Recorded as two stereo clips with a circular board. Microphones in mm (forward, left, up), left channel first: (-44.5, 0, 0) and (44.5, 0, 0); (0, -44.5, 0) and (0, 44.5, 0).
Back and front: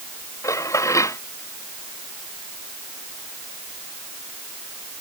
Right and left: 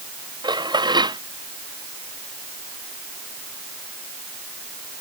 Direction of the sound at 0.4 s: 125° left.